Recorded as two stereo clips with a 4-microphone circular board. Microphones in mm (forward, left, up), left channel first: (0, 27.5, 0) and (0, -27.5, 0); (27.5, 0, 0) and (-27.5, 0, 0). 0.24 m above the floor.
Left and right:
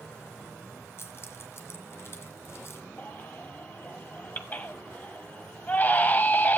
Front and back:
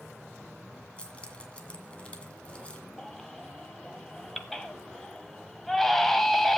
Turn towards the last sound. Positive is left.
turn(degrees=85)